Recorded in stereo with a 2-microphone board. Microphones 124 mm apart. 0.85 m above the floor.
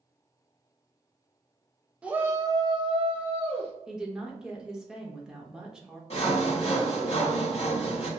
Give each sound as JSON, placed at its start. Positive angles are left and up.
{"t": 2.0, "sound": "a shout", "side_deg": -10, "distance_m": 0.9}
{"t": 3.9, "sound": "a woman speaking", "side_deg": -5, "distance_m": 1.0}
{"t": 6.1, "sound": "sawing", "side_deg": 55, "distance_m": 1.8}